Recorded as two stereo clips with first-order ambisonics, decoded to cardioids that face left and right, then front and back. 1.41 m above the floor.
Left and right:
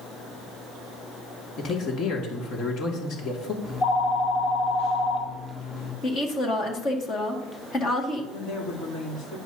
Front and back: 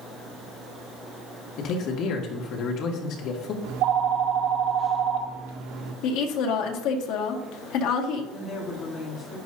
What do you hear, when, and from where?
1.6 s a man speaking: 40° left, 2 m
3.6 s a phone ringing: 155° left, 2.0 m
6.0 s a woman speaking: 25° left, 1.9 m
8.3 s a woman speaking: 55° left, 3 m